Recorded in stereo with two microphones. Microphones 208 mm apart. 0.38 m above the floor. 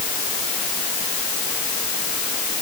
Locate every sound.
Only background noise.